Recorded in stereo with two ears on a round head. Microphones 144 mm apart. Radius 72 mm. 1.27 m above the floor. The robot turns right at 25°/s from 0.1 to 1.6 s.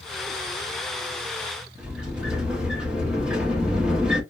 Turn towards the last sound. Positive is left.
turn(degrees=-5)  # may be behind; listen again after turning